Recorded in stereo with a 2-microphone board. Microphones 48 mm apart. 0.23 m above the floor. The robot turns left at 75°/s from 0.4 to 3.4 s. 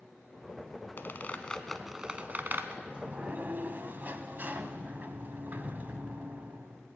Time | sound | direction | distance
1.0 | a squeak | 50° left (ahead or behind) | 0.9 m
2.8 | a sliding door | 25° right | 0.8 m